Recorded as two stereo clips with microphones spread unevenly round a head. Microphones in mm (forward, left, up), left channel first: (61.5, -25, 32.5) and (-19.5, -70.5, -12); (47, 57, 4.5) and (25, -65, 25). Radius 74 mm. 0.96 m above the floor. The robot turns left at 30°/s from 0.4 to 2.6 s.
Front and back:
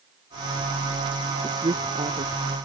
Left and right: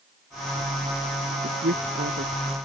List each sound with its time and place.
1.4 s a woman speaking: 100° right; by 2.3 s 130° right